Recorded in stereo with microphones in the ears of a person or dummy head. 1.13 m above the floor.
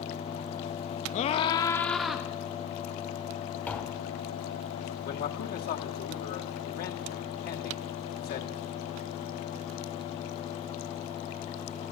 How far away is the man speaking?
About 2 m.